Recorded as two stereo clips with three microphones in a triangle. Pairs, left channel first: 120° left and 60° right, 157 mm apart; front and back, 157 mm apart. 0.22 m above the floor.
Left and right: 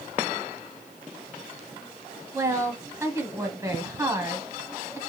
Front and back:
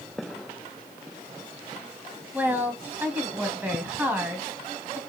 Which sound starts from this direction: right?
A woman speaking, at 2.3 s.